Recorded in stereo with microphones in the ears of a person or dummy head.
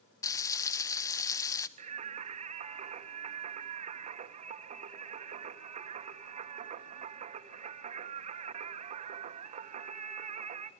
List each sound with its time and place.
0.2 s frying: 15° left (ahead or behind), 1.1 m
1.8 s singing: 35° right (ahead or behind), 1.2 m